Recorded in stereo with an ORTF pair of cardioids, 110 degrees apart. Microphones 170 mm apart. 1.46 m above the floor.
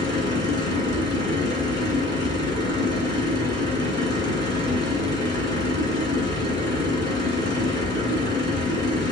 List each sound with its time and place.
0.0 s a machine running: 25° left, 3.5 m